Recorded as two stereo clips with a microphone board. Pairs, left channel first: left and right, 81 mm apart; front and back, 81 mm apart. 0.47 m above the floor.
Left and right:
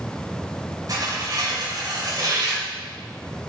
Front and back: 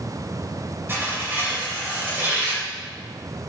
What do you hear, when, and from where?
0.9 s tearing paper: 120° right, 2.5 m